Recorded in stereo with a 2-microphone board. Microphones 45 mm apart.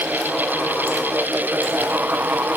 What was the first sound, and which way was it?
Only background noise.